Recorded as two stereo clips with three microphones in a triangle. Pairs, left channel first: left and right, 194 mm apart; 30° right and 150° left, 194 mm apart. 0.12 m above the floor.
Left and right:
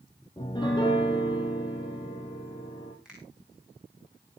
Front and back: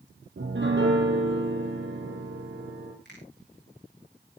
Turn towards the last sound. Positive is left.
turn(degrees=-5)